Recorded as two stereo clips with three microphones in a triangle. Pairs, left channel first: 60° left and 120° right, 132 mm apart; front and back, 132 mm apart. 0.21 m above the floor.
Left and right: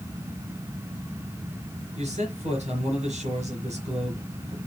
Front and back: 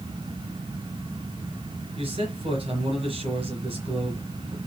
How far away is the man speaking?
About 3.5 m.